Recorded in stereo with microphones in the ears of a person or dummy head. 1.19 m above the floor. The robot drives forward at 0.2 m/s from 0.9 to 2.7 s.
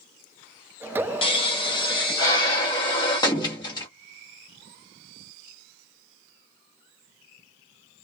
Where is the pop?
30° left (ahead or behind), 0.8 m; by 3.9 s 20° left (ahead or behind), 1.1 m.